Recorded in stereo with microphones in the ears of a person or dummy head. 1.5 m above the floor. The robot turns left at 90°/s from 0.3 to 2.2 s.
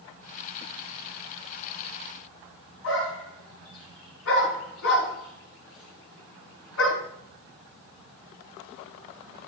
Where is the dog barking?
80° left, 6 m.